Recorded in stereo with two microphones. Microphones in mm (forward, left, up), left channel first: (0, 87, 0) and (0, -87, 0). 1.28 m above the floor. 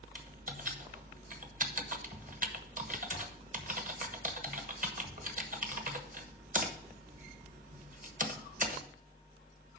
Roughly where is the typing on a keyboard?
Right.